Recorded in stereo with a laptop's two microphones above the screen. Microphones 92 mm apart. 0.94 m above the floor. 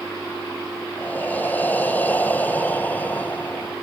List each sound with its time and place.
1.0 s breathing: 20° left (ahead or behind), 0.7 m